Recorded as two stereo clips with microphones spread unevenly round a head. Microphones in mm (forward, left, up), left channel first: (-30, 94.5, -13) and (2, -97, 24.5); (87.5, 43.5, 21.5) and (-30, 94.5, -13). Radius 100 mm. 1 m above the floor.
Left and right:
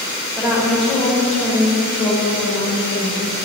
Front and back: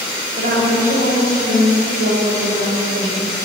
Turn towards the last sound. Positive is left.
turn(degrees=160)